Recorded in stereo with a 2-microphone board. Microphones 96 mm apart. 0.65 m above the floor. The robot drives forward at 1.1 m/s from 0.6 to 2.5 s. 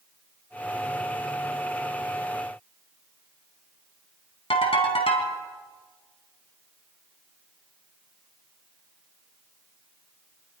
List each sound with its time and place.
4.5 s a ringtone: 80° left, 3.5 m